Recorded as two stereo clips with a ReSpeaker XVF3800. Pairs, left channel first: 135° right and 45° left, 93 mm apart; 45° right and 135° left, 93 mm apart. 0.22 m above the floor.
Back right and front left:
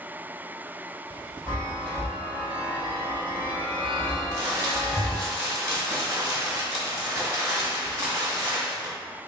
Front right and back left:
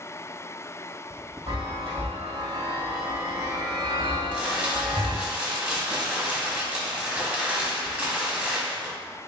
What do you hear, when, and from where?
1.5 s a chime: 145° left, 1.9 m
4.3 s crumpling: 70° left, 1.2 m